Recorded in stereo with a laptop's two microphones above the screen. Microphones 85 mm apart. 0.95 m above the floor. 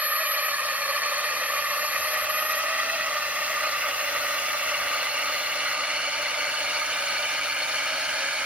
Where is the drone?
15° right (ahead or behind); by 8.5 s 10° right (ahead or behind).